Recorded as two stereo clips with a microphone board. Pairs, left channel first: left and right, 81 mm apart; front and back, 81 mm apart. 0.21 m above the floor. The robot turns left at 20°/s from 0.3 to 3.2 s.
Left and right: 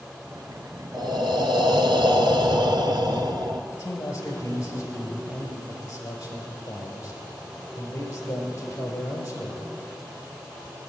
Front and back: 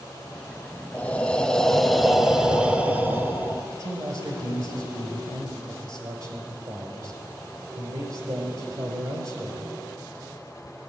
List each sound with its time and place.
0.9 s breathing: 70° right, 0.8 m; by 3.6 s 115° right, 0.8 m
3.7 s a man speaking: 140° left, 3.5 m